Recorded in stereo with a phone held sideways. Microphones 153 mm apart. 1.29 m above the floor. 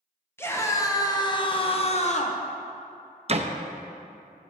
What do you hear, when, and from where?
0.4 s a scream: 15° left (ahead or behind), 1.3 m; by 2.4 s 55° left (ahead or behind), 0.9 m
3.3 s a door slam: 45° right (ahead or behind), 0.6 m